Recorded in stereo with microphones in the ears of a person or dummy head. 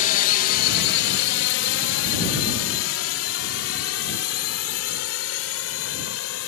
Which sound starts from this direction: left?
A drone, at 0.0 s.